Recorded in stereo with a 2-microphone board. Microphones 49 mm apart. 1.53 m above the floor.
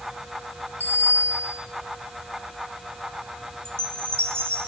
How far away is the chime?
About 2 m.